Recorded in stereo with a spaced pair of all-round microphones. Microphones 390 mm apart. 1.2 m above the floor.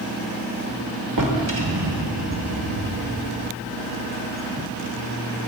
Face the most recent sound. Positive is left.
turn(degrees=-50)  # may be behind; listen again after turning